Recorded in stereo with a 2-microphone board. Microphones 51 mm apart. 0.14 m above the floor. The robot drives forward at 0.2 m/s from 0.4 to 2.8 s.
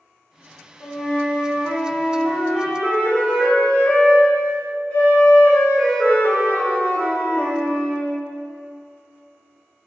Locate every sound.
0.8 s a flute: 55° left (ahead or behind), 0.9 m; by 8.2 s 50° left (ahead or behind), 1.0 m